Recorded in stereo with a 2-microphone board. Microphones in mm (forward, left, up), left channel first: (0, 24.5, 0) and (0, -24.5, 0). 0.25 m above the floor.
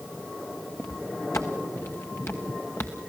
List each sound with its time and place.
0.8 s footsteps: 75° left (ahead or behind), 1.1 m; by 3.1 s 55° left (ahead or behind), 2 m